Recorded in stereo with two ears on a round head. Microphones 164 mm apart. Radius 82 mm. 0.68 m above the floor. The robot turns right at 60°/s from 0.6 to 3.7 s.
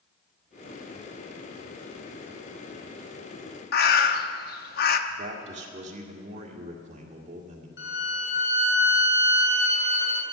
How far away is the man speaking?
About 1.9 m.